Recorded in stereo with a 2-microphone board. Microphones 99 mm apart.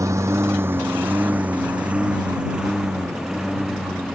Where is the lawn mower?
30° right (ahead or behind); by 4.2 s centre (ahead or behind).